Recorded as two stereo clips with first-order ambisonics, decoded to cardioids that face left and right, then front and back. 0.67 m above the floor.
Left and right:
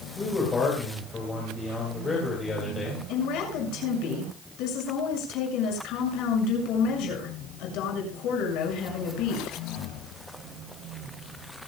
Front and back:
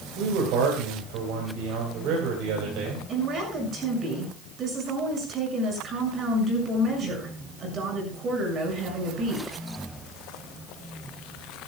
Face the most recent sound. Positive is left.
turn(degrees=120)